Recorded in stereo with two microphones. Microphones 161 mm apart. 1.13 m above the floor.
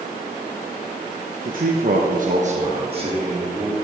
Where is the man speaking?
55° right (ahead or behind), 1.2 m; by 3.7 s 25° right (ahead or behind), 3 m.